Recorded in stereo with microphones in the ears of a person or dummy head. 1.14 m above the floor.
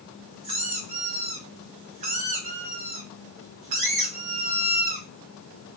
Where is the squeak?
35° right (ahead or behind), 0.8 m.